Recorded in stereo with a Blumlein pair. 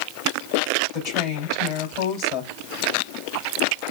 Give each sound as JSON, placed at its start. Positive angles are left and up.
{"t": 0.9, "sound": "a woman speaking", "azimuth_deg": 40, "distance_m": 3.0}